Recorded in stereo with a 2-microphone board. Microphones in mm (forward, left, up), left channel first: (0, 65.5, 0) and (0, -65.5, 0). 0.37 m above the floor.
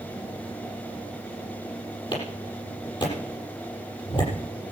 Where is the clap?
35° left (ahead or behind), 7.5 m.